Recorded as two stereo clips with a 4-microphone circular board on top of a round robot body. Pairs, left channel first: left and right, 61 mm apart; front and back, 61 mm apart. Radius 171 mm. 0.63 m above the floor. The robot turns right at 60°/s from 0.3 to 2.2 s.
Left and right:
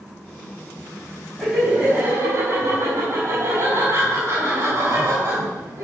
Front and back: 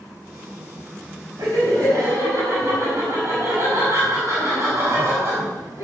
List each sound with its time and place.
1.4 s laughter: straight behind, 6 m; by 5.8 s 130° right, 6 m